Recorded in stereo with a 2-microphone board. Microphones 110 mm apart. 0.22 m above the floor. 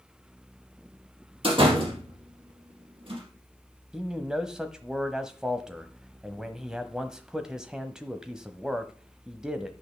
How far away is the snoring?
No snoring in this recording.